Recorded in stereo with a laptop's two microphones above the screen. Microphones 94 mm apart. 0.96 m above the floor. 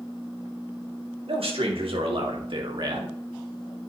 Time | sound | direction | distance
1.3 | a man speaking | 80° right | 2.5 m